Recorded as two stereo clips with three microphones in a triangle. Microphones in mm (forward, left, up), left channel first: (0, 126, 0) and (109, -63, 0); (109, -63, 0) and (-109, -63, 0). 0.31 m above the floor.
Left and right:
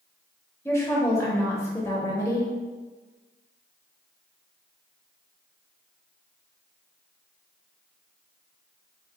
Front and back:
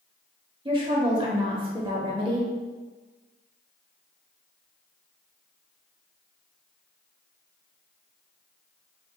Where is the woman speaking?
175° left, 1.0 m.